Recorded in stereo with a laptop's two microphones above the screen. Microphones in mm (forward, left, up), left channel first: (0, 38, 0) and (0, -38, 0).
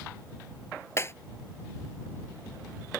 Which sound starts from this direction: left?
Breaking glass, at 1.0 s.